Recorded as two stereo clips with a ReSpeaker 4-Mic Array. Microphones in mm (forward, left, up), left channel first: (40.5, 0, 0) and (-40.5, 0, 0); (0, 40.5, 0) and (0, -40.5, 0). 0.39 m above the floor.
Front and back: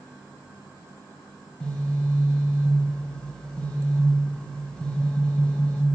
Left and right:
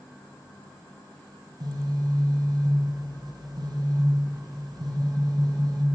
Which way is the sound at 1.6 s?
75° right.